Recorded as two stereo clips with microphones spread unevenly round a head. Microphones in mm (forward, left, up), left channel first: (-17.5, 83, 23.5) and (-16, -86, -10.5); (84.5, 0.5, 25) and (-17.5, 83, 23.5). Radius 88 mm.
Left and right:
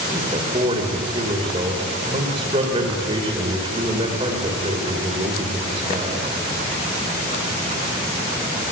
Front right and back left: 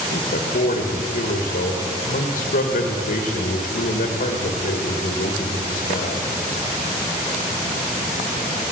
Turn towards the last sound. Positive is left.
turn(degrees=-25)